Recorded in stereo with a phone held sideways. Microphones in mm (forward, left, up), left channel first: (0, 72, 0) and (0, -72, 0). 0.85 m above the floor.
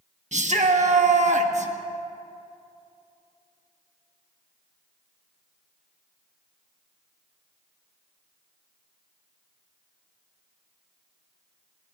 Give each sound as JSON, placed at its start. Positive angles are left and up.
{"t": 0.3, "sound": "a shout", "side_deg": -55, "distance_m": 1.1}